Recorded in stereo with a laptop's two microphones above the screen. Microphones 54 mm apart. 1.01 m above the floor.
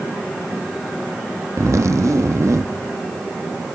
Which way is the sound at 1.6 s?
65° right (ahead or behind).